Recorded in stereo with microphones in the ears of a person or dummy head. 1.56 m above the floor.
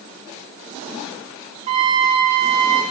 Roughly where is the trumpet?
Right.